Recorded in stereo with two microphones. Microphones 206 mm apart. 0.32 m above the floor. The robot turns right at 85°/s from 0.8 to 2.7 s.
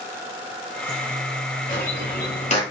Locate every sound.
1.7 s a bird: 35° left (ahead or behind), 1.4 m; by 2.6 s 25° left (ahead or behind), 1.4 m